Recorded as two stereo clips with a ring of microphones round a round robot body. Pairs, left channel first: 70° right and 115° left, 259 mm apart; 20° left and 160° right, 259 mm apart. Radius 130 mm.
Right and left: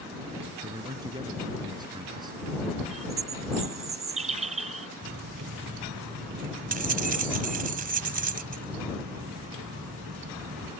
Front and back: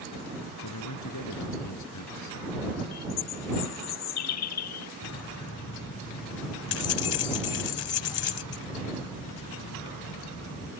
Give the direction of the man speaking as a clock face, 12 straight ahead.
11 o'clock.